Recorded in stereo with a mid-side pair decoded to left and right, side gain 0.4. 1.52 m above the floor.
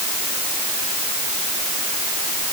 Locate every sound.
Only background noise.